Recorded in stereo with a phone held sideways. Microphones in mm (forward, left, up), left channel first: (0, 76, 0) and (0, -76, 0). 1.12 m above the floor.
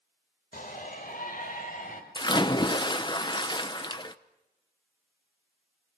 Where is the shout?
70° left (ahead or behind), 4.5 m.